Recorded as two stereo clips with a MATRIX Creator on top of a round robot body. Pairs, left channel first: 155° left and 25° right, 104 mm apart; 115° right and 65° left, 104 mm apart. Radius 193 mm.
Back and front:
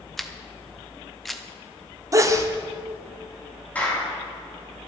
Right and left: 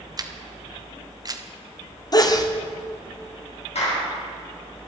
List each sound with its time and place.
0.2 s a camera shutter: 70° left, 1.5 m
2.1 s a sneeze: 70° right, 2.0 m
3.8 s a clap: 125° right, 5 m